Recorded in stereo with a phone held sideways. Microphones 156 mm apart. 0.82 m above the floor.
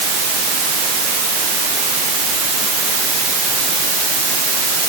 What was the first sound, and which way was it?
Only background noise.